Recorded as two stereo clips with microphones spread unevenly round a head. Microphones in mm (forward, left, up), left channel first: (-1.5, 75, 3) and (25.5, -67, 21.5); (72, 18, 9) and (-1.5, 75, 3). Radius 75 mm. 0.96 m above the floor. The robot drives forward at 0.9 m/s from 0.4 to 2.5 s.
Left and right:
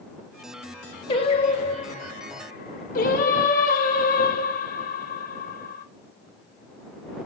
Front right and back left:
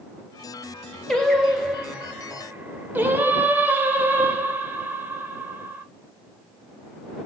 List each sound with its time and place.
1.1 s singing: 45° left, 3 m; by 5.8 s 70° left, 2 m